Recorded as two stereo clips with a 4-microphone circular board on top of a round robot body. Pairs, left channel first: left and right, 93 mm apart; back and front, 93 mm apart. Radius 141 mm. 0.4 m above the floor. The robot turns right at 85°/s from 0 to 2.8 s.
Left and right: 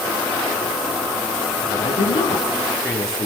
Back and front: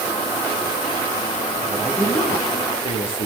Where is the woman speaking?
75° left, 9 m; by 3.3 s 175° left, 9 m.